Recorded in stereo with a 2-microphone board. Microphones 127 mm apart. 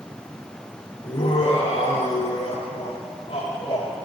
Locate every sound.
1.0 s laughter: 60° left (ahead or behind), 3.5 m; by 4.0 s 55° left (ahead or behind), 5.5 m